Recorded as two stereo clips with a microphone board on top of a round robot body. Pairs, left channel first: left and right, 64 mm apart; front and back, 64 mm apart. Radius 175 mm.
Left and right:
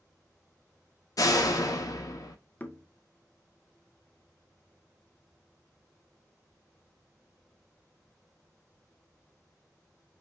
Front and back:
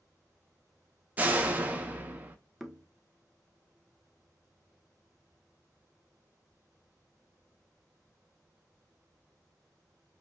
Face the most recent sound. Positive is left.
turn(degrees=95)